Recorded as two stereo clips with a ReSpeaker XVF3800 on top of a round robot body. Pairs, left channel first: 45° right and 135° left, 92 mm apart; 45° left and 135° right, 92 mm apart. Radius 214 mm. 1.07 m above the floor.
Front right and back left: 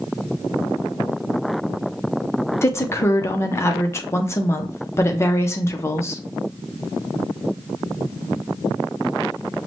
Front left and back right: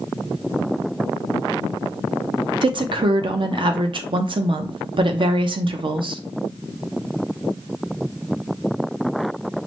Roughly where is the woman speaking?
Right.